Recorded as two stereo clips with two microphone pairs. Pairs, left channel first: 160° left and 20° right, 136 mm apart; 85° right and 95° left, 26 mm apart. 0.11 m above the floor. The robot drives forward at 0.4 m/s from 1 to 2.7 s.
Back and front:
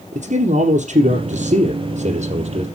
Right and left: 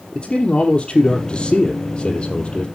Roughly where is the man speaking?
Ahead right.